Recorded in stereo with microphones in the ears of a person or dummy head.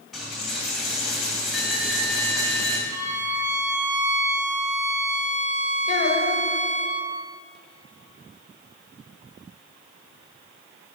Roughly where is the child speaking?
Left.